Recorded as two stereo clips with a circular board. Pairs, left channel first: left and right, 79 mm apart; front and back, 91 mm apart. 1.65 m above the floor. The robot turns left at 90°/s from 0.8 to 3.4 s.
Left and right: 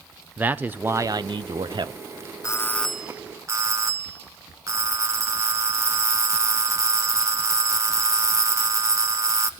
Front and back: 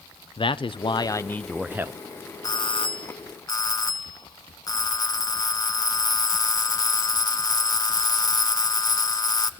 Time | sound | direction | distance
0.4 | a man speaking | 20° right | 0.8 m
2.4 | a doorbell | 45° left | 0.9 m